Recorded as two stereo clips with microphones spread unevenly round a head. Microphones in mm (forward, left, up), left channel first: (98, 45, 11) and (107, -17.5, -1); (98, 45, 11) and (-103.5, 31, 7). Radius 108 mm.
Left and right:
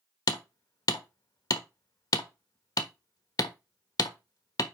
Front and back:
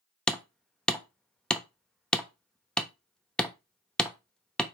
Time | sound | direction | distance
0.3 | hammering | 90° left | 1.2 m